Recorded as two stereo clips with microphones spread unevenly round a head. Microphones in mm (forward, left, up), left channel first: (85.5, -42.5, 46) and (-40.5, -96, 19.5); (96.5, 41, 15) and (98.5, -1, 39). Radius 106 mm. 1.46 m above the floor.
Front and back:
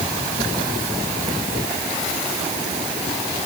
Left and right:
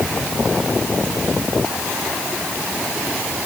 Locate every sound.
Only background noise.